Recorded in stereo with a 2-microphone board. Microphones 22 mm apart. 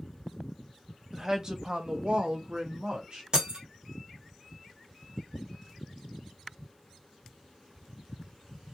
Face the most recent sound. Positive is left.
turn(degrees=-35)  # may be behind; listen again after turning